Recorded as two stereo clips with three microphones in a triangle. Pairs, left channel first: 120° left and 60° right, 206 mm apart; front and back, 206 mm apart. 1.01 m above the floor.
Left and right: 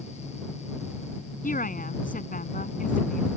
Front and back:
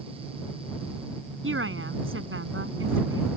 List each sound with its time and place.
1.4 s a woman speaking: 170° left